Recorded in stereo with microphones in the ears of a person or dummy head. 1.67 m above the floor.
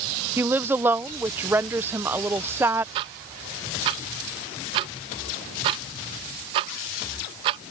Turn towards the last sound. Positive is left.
turn(degrees=-25)  # may be behind; listen again after turning